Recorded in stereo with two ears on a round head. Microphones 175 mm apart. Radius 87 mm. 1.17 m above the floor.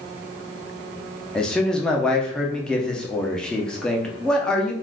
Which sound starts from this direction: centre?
A man speaking, at 1.4 s.